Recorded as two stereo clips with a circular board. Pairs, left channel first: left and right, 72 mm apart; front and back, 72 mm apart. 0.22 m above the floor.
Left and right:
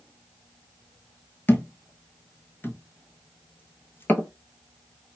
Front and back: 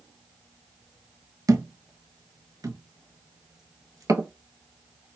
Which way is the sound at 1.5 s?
150° left.